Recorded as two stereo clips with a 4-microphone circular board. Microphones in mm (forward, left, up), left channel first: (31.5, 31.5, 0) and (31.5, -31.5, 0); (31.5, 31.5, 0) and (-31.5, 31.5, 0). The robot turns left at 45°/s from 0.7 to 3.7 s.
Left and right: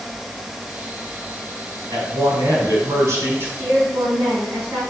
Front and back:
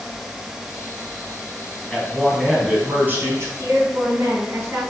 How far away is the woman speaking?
About 3.5 m.